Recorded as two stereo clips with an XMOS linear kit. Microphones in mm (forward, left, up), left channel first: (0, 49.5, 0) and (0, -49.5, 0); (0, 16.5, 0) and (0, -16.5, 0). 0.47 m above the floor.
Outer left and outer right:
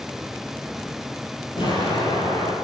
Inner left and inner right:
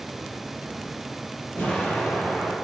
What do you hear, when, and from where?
1.6 s an explosion: 60° left (ahead or behind), 6.5 m